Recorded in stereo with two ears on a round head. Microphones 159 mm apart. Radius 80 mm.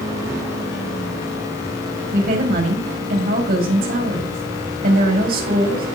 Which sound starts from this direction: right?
A woman speaking, at 2.1 s.